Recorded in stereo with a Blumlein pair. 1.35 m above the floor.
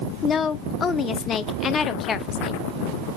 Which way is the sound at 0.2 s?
20° left.